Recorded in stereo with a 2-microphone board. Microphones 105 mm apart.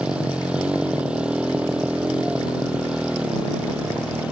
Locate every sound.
0.0 s a motorcycle: 10° right (ahead or behind)